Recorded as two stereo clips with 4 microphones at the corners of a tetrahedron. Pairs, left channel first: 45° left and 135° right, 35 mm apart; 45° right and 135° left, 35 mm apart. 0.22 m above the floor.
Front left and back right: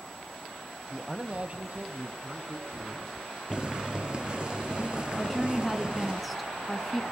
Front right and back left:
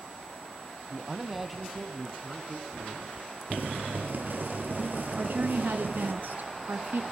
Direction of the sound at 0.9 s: 155° left.